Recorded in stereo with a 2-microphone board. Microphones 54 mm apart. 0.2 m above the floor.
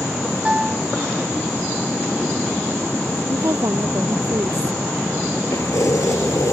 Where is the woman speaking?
70° right (ahead or behind).